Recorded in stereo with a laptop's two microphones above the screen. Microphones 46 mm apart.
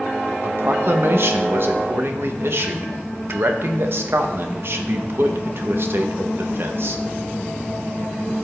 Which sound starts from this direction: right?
A man speaking, at 0.4 s.